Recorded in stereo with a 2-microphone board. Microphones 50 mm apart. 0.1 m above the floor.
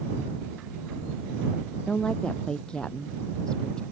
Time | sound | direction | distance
1.9 | a woman speaking | 20° left (ahead or behind) | ?